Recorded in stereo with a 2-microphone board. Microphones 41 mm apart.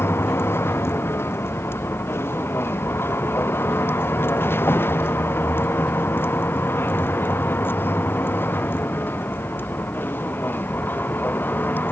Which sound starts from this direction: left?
A vehicle, at 0.0 s.